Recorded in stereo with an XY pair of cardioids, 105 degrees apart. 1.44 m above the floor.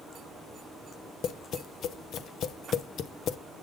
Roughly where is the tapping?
Ahead left.